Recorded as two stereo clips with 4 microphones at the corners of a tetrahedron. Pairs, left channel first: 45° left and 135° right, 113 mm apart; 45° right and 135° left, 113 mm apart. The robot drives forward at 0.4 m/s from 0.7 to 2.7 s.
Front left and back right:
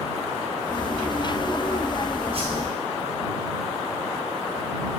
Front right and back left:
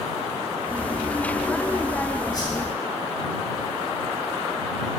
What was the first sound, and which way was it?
A whoosh, 100° right.